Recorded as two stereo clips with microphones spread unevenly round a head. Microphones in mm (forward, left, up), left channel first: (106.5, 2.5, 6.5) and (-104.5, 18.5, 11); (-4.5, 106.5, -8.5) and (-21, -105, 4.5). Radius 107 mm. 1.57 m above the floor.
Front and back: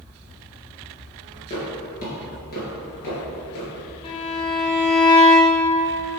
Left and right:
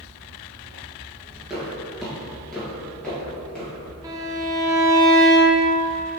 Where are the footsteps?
20° right, 1.6 m; by 3.7 s straight ahead, 2.5 m.